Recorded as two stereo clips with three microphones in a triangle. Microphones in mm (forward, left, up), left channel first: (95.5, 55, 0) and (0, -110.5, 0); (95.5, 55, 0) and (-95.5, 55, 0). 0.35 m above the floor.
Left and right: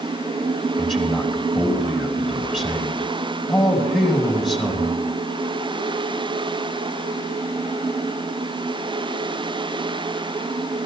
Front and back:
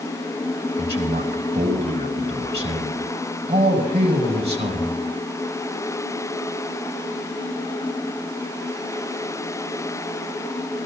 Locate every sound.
0.8 s a man speaking: 150° left, 3.5 m